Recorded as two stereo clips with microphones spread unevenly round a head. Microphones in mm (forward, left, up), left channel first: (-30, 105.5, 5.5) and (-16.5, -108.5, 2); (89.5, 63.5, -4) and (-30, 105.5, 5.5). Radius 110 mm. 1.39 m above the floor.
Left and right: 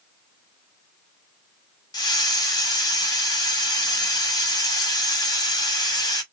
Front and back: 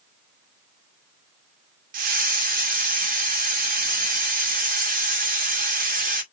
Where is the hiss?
165° left, 2 m.